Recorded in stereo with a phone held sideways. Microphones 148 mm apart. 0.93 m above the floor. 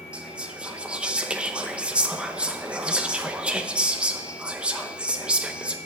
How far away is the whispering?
About 0.7 m.